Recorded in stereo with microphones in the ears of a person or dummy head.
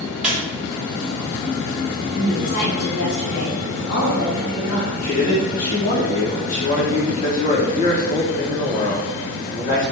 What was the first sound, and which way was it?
A squeak, 5° right (ahead or behind).